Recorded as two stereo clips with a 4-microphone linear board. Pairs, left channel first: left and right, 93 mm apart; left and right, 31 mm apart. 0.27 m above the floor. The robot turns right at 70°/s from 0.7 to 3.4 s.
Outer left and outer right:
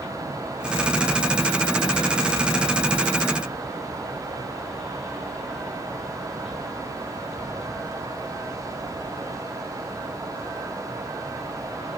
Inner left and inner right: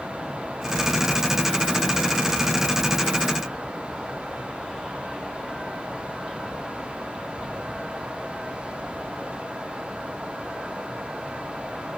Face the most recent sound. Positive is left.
No sound to turn to.